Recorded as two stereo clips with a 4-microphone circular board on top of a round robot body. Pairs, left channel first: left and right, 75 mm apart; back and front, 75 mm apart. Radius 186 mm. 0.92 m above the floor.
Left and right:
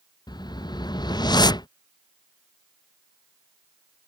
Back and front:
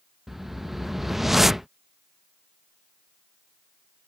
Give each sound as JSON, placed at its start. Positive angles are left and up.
{"t": 0.3, "sound": "a whoosh", "azimuth_deg": 85}